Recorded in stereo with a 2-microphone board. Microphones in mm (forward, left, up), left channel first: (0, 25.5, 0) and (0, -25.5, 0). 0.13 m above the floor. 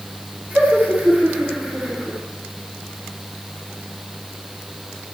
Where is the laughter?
40° right (ahead or behind), 9 m.